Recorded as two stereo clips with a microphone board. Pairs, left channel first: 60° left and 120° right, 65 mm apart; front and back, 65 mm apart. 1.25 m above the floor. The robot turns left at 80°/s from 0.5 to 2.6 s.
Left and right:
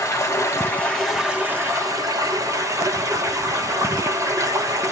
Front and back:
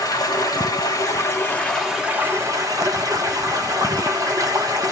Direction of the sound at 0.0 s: 15° left.